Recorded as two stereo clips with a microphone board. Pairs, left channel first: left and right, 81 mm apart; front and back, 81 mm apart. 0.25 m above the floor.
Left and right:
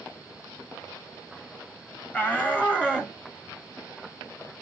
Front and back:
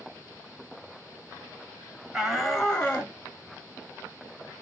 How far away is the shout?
About 1.1 m.